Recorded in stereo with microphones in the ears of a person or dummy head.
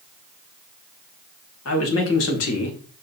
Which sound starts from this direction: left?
A man speaking, at 1.6 s.